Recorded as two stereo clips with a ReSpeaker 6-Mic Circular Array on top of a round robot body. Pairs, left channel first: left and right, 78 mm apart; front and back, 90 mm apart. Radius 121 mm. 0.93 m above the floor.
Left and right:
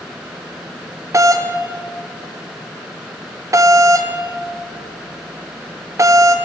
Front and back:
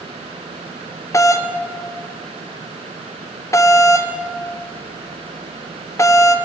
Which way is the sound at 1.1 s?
50° right.